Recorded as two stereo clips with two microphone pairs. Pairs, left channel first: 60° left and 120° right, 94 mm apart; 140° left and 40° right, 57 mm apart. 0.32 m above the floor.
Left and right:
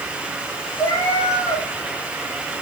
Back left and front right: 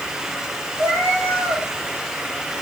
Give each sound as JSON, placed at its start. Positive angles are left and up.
{"t": 0.8, "sound": "a cat meowing", "azimuth_deg": 5, "distance_m": 4.5}